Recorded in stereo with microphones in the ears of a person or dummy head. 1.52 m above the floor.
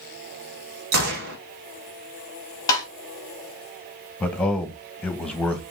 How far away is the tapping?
About 3 m.